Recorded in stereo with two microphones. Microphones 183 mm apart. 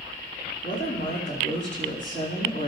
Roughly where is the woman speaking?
Left.